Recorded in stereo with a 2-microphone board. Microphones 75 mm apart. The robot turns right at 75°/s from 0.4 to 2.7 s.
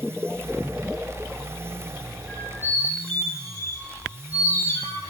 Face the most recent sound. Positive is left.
turn(degrees=40)  # may be behind; listen again after turning